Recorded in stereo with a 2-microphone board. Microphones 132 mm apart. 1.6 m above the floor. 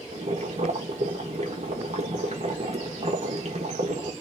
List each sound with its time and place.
0.1 s boiling: 55° right (ahead or behind), 1.4 m